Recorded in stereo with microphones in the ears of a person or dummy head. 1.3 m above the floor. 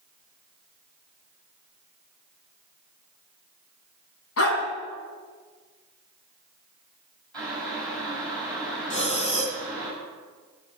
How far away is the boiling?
About 7 m.